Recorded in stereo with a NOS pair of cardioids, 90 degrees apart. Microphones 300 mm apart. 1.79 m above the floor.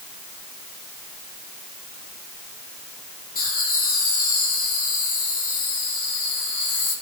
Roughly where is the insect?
No insect in this recording.